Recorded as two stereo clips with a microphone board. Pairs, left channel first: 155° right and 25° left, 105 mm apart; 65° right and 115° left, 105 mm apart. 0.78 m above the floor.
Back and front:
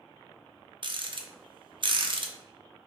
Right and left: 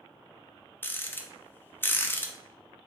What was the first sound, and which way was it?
A rattle, straight ahead.